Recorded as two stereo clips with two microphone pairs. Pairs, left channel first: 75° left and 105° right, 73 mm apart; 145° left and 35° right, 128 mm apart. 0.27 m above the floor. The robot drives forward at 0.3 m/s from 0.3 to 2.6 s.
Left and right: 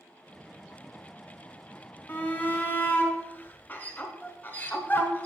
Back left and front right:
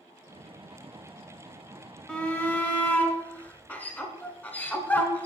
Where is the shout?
75° left, 1.3 m; by 5.3 s 90° left, 1.3 m.